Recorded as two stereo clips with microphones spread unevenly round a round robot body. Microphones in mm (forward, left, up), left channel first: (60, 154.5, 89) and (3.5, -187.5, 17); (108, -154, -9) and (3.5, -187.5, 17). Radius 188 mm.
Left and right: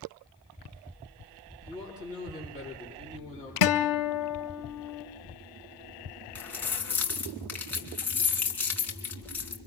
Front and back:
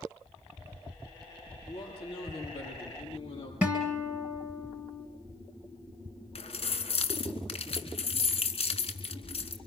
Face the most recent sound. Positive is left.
turn(degrees=-5)